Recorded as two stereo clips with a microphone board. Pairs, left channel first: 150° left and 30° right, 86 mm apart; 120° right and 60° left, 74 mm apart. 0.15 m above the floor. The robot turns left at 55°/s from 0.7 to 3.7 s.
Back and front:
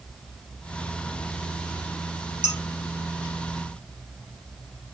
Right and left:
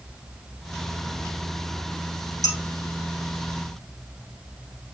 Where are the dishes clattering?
105° right, 1.6 m; by 2.6 s 115° right, 1.6 m.